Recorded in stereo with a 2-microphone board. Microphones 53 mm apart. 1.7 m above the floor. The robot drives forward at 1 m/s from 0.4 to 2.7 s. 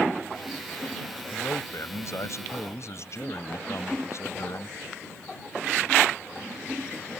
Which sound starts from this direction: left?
A man speaking, at 1.3 s.